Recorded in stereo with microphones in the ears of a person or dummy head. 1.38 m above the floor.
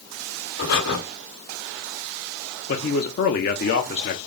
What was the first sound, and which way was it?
Breathing, 50° left (ahead or behind).